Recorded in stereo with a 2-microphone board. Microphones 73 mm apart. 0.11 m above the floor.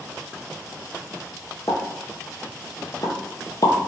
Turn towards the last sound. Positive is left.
turn(degrees=55)  # may be behind; listen again after turning